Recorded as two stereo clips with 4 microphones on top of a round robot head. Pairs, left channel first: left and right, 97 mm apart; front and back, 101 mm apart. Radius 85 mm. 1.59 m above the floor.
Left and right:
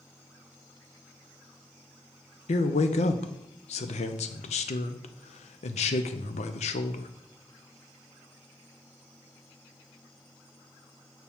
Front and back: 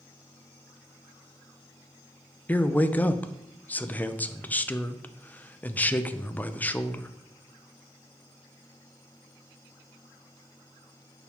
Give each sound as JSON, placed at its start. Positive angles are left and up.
{"t": 2.5, "sound": "a man speaking", "azimuth_deg": 70, "distance_m": 0.6}